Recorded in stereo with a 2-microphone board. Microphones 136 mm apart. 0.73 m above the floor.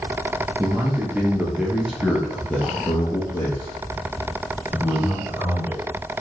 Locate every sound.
0.6 s a man speaking: 15° right (ahead or behind), 1.3 m; by 5.8 s 25° left (ahead or behind), 2.5 m